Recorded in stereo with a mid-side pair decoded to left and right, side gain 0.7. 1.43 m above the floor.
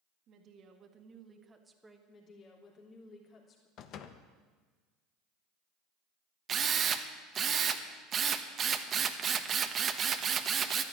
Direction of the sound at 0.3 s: 50° right.